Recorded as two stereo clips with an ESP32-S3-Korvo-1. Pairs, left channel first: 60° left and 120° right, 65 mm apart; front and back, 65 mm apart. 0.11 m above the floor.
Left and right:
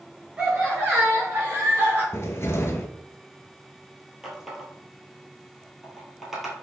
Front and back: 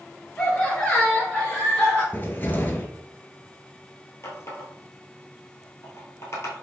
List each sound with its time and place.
0.4 s laughter: 55° right, 1.7 m; by 2.0 s 60° right, 2.5 m
2.1 s a cupboard door: 45° left, 0.7 m
4.2 s a running tap: 35° right, 1.6 m